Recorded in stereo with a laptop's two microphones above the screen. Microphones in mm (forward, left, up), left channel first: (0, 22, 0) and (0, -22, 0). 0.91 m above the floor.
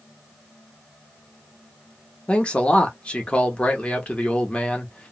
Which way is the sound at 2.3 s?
25° left (ahead or behind).